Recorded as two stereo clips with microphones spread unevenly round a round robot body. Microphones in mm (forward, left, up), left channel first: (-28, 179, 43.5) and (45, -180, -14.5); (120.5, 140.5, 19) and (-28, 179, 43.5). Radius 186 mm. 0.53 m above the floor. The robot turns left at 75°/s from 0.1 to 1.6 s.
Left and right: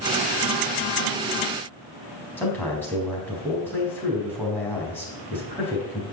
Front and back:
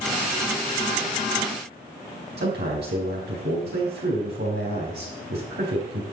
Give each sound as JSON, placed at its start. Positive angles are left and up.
{"t": 2.4, "sound": "a man speaking", "azimuth_deg": -170, "distance_m": 4.0}